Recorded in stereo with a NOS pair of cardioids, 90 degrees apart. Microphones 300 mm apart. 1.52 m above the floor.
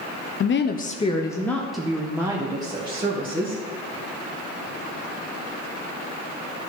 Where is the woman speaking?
45° left, 0.7 m; by 3.6 s 20° right, 2 m.